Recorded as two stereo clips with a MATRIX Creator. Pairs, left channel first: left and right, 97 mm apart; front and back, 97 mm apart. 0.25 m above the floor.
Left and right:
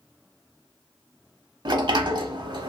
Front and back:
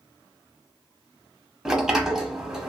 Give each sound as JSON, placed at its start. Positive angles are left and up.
{"t": 1.6, "sound": "a sliding door", "azimuth_deg": -100, "distance_m": 0.6}